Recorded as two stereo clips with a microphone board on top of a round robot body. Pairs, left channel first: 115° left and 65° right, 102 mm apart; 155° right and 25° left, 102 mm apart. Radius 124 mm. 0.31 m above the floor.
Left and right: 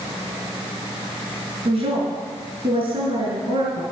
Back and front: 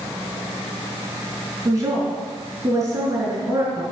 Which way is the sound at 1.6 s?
40° right.